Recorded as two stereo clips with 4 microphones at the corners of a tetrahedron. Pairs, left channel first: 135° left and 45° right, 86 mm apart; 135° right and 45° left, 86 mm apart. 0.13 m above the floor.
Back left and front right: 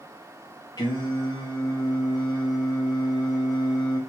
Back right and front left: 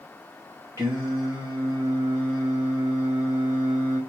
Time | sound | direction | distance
0.8 | singing | 95° left | 4.5 m